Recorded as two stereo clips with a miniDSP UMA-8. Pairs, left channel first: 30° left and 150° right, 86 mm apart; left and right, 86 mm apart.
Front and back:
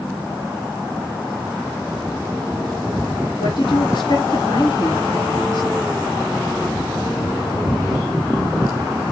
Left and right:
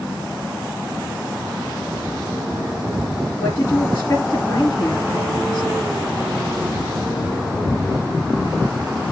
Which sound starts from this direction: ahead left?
A woman speaking, at 3.4 s.